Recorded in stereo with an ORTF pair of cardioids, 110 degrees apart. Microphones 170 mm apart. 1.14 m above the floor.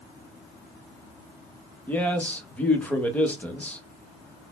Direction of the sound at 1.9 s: 10° left.